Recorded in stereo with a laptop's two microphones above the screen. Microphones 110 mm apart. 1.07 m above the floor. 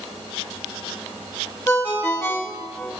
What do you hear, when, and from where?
1.7 s a ringtone: 25° left (ahead or behind), 1.3 m